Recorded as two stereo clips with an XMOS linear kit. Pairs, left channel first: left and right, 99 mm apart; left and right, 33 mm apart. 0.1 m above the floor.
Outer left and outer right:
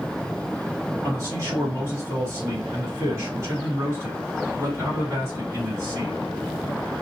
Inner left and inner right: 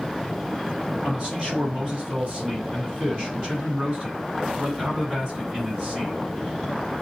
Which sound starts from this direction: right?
A man speaking, at 1.0 s.